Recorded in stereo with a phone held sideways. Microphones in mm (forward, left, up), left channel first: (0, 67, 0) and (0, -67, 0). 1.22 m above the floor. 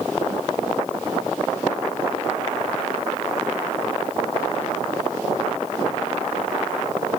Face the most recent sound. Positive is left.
No sound to turn to.